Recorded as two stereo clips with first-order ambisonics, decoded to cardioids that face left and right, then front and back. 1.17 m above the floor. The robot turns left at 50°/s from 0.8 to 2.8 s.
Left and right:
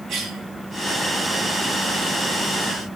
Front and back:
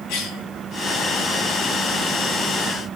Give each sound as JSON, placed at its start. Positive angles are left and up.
{"t": 0.1, "sound": "a cough", "azimuth_deg": -25, "distance_m": 2.0}